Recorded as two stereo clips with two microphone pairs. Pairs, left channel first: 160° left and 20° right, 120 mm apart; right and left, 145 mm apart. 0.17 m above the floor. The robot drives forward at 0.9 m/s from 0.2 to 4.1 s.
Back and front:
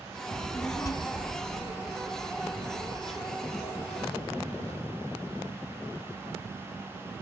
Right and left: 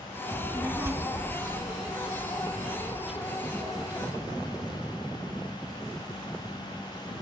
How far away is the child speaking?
About 0.6 m.